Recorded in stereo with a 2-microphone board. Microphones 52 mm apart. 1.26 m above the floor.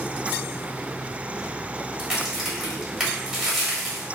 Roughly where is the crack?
Centre.